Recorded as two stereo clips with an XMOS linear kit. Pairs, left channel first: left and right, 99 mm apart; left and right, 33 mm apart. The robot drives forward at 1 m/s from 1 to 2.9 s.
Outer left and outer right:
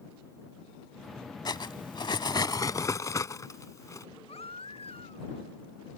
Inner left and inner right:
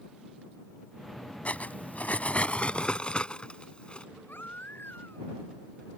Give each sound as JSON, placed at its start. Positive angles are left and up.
{"t": 1.4, "sound": "cutlery clinking", "side_deg": 45}
{"t": 4.3, "sound": "a baby crying", "side_deg": 85}